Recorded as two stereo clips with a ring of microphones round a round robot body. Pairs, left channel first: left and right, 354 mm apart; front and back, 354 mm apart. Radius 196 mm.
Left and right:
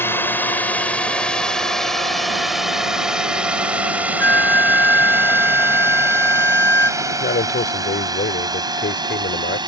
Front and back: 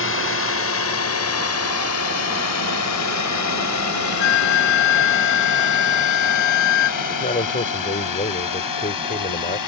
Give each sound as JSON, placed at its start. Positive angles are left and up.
{"t": 0.0, "sound": "a drone", "azimuth_deg": 10}
{"t": 4.2, "sound": "a flute", "azimuth_deg": 5}
{"t": 7.0, "sound": "a man speaking", "azimuth_deg": 55}